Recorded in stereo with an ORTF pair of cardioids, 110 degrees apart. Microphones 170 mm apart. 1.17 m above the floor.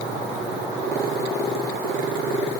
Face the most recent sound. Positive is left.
No sound to turn to.